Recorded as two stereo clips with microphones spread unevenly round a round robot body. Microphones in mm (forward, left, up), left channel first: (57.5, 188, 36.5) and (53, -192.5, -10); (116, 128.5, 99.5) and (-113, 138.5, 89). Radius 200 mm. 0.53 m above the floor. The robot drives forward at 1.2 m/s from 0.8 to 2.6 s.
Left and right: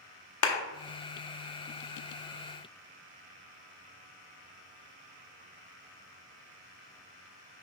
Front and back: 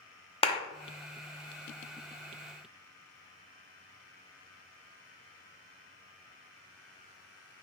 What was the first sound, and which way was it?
A clap, 55° left.